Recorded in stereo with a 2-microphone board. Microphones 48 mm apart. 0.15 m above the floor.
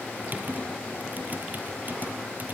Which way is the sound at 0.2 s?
40° right (ahead or behind).